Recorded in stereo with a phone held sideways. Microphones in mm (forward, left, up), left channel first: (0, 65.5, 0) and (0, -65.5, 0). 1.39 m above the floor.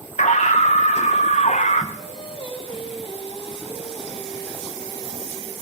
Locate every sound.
0.2 s a scream: 70° left (ahead or behind), 1.5 m
2.0 s singing: 45° left (ahead or behind), 2 m